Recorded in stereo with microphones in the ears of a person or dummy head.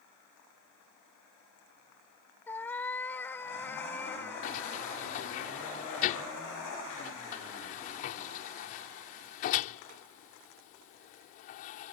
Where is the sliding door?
45° left (ahead or behind).